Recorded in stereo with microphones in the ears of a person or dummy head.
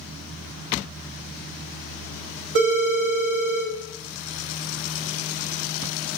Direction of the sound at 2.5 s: 60° right (ahead or behind).